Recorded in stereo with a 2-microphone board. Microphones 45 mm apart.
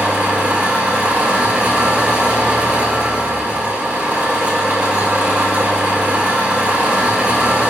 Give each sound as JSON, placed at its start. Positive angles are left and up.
{"t": 0.0, "sound": "an engine running", "side_deg": -35, "distance_m": 2.0}